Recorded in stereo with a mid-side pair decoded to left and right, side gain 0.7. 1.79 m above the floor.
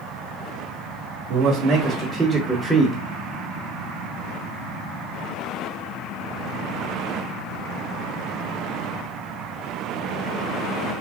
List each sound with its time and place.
1.3 s a man speaking: 60° right, 1.1 m; by 3.0 s 20° left, 0.8 m